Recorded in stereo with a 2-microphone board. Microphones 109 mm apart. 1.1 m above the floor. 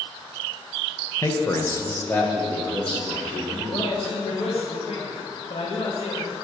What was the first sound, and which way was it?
A man speaking, 25° left (ahead or behind).